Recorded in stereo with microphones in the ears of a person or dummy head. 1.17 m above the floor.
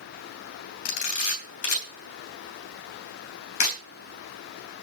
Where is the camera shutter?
65° left (ahead or behind), 3 m.